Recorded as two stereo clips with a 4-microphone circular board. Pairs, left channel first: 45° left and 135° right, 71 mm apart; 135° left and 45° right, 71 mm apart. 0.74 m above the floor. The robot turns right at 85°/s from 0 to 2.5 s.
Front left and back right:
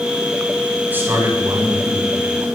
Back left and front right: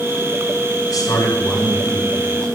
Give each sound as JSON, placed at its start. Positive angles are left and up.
{"t": 0.9, "sound": "a man speaking", "azimuth_deg": 160, "distance_m": 6.0}